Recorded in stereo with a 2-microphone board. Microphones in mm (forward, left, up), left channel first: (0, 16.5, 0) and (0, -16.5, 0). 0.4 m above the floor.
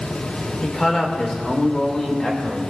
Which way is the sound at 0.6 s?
20° left (ahead or behind).